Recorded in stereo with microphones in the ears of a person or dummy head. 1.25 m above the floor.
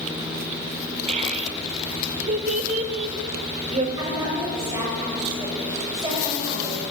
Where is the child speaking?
40° right (ahead or behind), 2 m.